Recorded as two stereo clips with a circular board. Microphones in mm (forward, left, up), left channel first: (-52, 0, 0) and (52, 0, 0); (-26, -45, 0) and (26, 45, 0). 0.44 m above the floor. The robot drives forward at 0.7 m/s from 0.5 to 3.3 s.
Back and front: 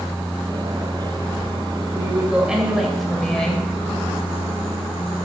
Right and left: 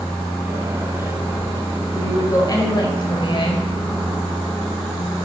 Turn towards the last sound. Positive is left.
turn(degrees=-95)